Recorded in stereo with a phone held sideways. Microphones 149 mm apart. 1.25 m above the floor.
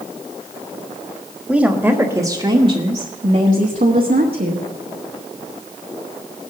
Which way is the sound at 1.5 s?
5° right (ahead or behind).